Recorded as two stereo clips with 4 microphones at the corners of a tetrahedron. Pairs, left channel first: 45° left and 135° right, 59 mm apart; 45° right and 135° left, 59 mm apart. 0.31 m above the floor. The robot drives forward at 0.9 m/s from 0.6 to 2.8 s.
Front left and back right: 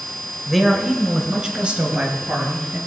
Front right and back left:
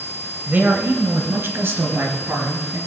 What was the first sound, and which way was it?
A man speaking, 140° left.